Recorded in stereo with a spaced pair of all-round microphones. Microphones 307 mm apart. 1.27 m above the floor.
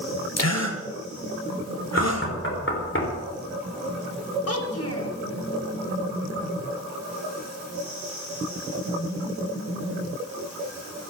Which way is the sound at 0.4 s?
60° left (ahead or behind).